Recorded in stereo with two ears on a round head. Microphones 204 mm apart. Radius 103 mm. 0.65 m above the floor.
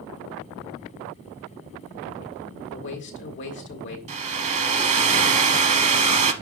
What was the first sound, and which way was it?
A man speaking, 55° left (ahead or behind).